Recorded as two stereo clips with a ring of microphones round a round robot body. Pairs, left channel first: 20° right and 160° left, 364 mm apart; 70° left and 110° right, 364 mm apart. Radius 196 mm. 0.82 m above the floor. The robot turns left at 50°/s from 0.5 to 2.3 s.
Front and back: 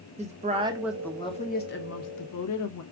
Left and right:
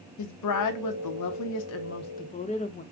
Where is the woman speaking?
90° left, 0.9 m; by 2.8 s straight ahead, 0.9 m.